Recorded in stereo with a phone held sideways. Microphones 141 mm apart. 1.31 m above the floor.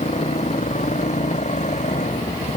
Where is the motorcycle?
55° left (ahead or behind); by 2.6 s 60° left (ahead or behind).